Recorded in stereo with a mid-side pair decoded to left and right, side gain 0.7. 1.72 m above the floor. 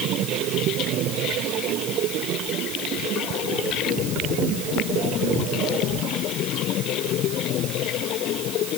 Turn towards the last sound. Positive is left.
No sound to turn to.